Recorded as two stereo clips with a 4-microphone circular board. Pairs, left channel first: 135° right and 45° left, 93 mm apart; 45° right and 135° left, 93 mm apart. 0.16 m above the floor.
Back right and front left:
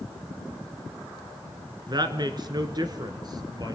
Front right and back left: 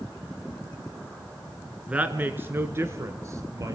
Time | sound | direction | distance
1.9 | a woman speaking | 60° left | 1.7 m